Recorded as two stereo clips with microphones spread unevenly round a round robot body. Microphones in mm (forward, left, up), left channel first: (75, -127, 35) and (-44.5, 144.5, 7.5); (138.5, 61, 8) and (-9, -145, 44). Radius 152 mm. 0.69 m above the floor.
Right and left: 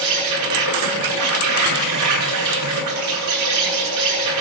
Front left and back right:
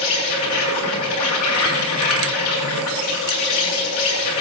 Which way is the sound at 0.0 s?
90° left.